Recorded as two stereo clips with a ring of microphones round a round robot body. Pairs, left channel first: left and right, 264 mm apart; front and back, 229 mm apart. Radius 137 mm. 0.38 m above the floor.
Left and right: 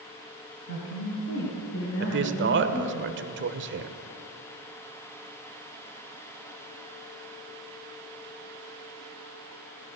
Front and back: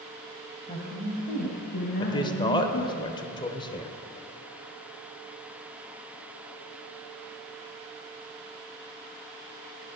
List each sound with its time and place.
0.7 s a woman speaking: 65° left, 2.5 m; by 3.0 s 35° left, 3.5 m
2.0 s a man speaking: 65° right, 1.1 m